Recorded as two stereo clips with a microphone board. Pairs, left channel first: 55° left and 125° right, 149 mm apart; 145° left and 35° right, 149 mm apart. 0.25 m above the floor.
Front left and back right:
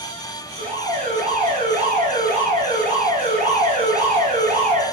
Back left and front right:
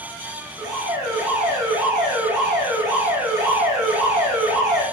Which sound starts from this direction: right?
An alarm, at 0.6 s.